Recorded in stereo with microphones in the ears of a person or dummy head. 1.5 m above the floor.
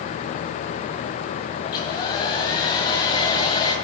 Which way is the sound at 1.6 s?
30° left (ahead or behind).